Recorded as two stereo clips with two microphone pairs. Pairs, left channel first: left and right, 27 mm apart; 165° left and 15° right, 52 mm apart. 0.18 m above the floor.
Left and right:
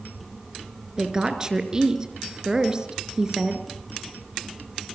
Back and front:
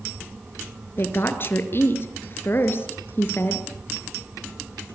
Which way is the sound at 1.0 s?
155° right.